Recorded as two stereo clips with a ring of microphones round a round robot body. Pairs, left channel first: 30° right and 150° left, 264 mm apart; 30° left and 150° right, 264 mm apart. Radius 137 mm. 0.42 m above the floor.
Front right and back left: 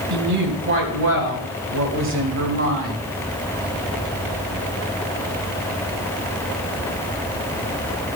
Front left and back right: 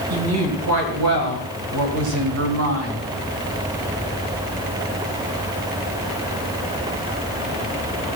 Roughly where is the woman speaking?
Behind.